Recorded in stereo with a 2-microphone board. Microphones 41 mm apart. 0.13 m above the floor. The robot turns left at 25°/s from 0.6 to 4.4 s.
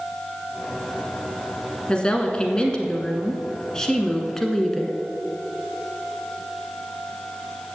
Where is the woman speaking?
25° left (ahead or behind), 1.1 m; by 5.0 s 10° left (ahead or behind), 1.1 m.